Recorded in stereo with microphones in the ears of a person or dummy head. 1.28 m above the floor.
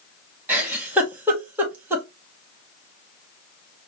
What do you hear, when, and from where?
0.5 s a giggle: 10° right (ahead or behind), 1.2 m